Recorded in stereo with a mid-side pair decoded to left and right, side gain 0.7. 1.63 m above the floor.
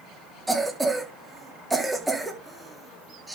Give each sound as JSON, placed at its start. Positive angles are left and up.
{"t": 0.5, "sound": "a cough", "azimuth_deg": -10, "distance_m": 3.5}